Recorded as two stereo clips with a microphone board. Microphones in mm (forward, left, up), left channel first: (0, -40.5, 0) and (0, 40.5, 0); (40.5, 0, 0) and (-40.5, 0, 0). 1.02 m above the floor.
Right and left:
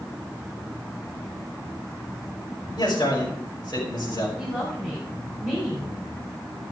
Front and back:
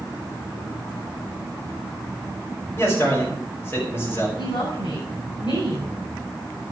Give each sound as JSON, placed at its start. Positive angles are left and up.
{"t": 2.8, "sound": "a man speaking", "azimuth_deg": -60, "distance_m": 6.0}
{"t": 4.4, "sound": "a woman speaking", "azimuth_deg": -10, "distance_m": 7.5}